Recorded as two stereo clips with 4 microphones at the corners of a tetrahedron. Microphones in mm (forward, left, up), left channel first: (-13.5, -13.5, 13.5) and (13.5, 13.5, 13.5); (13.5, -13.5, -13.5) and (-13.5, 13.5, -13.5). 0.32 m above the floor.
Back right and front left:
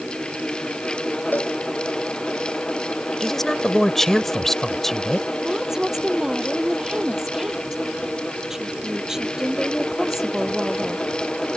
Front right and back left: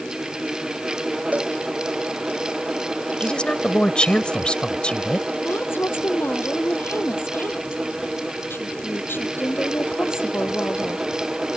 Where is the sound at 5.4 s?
35° right.